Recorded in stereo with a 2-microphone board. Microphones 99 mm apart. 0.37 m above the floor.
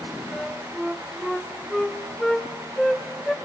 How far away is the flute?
About 0.6 m.